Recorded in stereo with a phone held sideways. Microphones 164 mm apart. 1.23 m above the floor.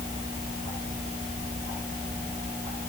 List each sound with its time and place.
Only background noise.